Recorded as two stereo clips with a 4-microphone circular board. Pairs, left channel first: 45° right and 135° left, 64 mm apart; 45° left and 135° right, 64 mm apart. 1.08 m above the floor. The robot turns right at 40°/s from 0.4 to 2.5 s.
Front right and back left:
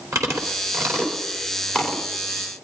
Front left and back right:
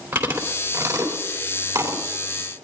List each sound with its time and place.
0.1 s chewing: 165° left, 3 m; by 2.0 s 130° right, 3 m